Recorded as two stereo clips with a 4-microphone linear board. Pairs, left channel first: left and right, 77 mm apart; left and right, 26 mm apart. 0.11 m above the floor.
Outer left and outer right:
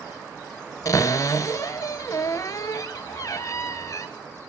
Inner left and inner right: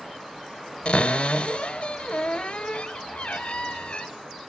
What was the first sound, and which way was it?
A cupboard door, 45° left (ahead or behind).